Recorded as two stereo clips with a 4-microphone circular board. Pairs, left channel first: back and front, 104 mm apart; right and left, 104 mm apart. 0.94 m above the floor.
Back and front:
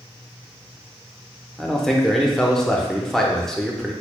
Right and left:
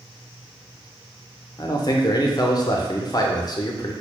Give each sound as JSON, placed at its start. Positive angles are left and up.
{"t": 1.6, "sound": "a man speaking", "azimuth_deg": -100, "distance_m": 0.6}